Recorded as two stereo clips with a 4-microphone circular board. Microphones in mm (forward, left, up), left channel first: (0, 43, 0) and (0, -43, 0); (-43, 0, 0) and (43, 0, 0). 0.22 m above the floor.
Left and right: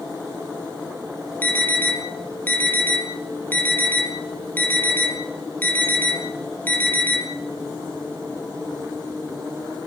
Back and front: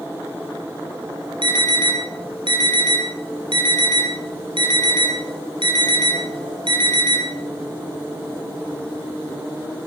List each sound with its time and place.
1.4 s an alarm: 20° left, 6.5 m